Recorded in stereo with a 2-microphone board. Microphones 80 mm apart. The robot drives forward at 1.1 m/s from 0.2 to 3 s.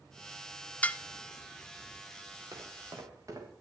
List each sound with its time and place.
0.8 s dishes clattering: 15° left (ahead or behind), 0.8 m
2.5 s footsteps: 50° right (ahead or behind), 5.5 m; by 3.5 s 45° right (ahead or behind), 6 m